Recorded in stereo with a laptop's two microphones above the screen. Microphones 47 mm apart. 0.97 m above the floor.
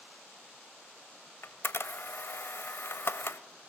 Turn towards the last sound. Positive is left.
turn(degrees=60)  # may be behind; listen again after turning